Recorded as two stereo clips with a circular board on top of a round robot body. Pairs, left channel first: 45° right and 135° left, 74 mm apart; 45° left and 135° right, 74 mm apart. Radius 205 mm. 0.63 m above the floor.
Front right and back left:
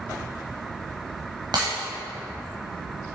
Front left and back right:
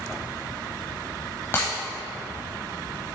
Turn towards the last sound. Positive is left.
turn(degrees=105)